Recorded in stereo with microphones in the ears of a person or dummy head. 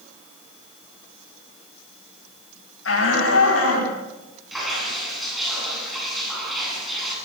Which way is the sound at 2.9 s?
85° left.